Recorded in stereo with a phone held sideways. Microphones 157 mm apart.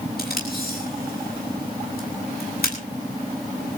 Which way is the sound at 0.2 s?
75° left (ahead or behind).